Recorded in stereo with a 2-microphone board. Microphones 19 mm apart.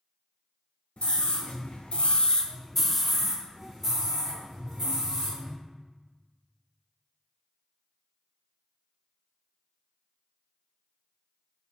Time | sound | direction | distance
1.0 | a scream | 55° left (ahead or behind) | 1.2 m